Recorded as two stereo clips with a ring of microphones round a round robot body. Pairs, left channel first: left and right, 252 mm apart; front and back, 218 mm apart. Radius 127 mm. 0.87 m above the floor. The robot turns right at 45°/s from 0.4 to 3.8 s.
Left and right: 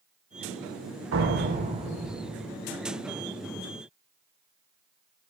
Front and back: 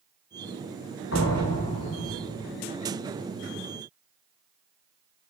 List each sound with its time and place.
1.1 s a door slam: 50° right, 2.5 m; by 2.5 s 15° left, 2.5 m